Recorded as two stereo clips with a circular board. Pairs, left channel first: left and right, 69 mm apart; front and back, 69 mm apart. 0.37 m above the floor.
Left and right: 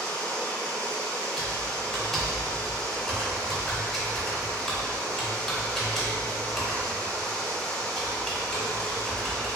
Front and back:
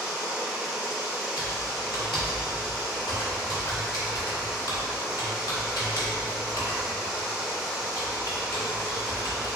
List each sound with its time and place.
0.0 s running water: 135° left, 0.8 m
1.4 s typing on a keyboard: 5° left, 0.9 m